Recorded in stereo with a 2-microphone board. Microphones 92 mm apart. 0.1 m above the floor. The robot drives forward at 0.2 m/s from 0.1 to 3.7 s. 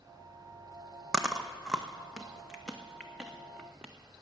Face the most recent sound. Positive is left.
turn(degrees=-5)  # may be behind; listen again after turning